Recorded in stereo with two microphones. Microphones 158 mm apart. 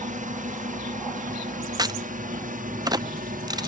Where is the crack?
25° right (ahead or behind).